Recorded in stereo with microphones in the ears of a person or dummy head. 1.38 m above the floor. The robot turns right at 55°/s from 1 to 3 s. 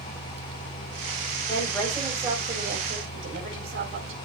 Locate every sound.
1.5 s a woman speaking: 155° left, 4.5 m; by 4.2 s 125° right, 4.5 m